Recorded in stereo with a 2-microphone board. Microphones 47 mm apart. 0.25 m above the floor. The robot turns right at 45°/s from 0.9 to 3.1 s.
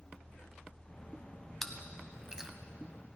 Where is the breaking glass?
I don't hear breaking glass.